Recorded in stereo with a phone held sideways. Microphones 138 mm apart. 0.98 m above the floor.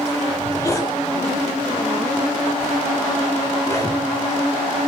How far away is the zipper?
About 7 m.